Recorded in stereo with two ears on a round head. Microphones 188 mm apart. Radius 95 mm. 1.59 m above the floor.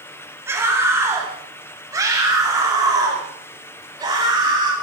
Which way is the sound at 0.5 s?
10° right (ahead or behind).